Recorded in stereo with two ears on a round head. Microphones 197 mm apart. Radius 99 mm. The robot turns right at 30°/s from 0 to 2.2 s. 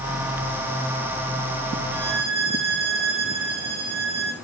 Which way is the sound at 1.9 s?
70° right (ahead or behind).